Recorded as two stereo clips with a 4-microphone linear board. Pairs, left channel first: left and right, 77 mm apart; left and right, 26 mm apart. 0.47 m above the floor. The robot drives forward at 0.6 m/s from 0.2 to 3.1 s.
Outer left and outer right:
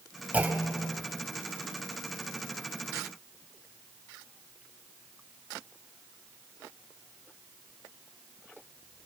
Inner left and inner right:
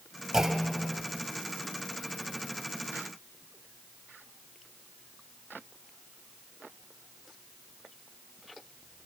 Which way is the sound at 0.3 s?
20° right (ahead or behind).